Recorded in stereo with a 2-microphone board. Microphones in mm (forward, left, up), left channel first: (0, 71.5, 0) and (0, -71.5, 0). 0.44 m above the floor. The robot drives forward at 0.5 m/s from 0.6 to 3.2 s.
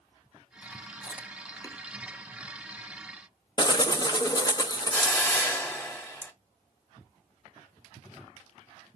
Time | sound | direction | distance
1.0 | chewing | 30° left (ahead or behind) | 0.7 m
3.6 | a bird | 30° left (ahead or behind) | 0.7 m
4.9 | a hiss | 15° left (ahead or behind) | 1.1 m